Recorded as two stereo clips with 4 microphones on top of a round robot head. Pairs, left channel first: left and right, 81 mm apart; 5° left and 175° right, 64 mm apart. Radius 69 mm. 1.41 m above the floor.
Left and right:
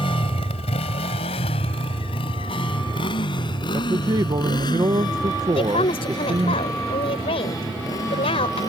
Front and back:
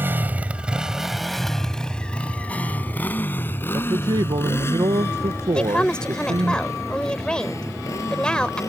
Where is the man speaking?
140° right.